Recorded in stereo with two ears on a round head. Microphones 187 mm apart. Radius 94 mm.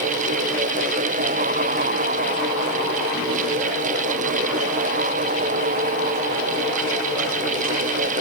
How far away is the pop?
No pop in this recording.